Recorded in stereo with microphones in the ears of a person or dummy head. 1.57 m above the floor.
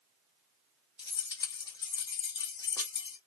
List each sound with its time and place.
1.0 s keys jangling: 20° left (ahead or behind), 0.8 m